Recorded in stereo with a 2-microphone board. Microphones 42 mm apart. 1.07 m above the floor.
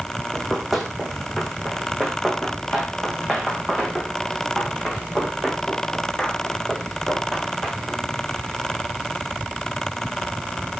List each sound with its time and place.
0.3 s running footsteps: centre (ahead or behind), 2.5 m; by 8.0 s 5° left (ahead or behind), 7.5 m